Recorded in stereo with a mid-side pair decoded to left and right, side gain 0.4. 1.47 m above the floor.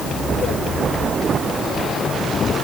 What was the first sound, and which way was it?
Only background noise.